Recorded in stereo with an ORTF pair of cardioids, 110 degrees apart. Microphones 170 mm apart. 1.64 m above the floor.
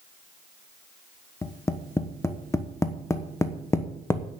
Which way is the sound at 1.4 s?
15° left.